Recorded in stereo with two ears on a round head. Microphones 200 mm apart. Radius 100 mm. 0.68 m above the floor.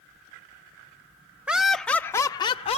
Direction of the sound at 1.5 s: 5° right (ahead or behind).